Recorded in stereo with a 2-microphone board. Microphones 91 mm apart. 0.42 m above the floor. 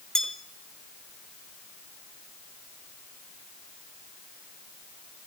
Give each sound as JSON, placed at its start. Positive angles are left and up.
{"t": 0.1, "sound": "a bell", "side_deg": 5, "distance_m": 1.3}